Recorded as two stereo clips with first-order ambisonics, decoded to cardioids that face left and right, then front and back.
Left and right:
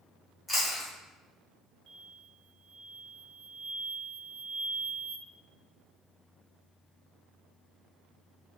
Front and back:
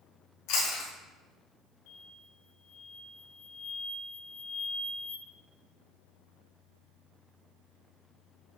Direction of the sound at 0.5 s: 5° left.